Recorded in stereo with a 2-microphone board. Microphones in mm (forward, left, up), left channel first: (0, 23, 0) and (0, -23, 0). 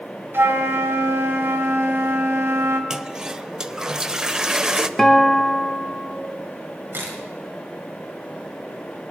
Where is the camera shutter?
50° right (ahead or behind), 3.5 m.